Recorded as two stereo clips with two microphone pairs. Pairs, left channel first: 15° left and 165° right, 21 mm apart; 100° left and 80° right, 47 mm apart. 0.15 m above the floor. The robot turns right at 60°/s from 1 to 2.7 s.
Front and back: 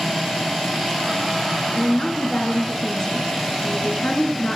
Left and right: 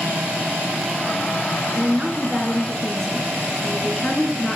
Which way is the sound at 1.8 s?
30° right.